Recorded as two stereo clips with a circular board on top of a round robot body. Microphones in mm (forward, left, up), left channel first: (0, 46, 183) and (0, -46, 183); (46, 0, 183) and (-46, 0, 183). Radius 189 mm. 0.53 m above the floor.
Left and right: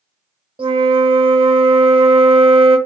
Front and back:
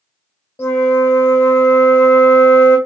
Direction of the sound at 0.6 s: 65° right.